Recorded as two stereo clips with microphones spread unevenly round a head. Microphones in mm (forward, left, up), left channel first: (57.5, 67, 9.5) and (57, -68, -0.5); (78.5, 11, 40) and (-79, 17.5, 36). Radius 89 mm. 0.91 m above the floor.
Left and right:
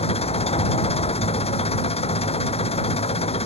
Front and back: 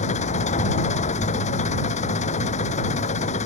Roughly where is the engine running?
Ahead left.